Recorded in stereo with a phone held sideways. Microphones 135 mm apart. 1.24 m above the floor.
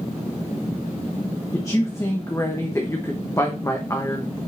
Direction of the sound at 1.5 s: 20° left (ahead or behind).